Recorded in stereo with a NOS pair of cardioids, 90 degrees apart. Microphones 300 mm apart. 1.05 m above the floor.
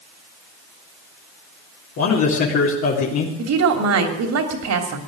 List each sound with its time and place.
2.0 s a man speaking: 65° left, 3.5 m
3.4 s a woman speaking: 65° right, 3 m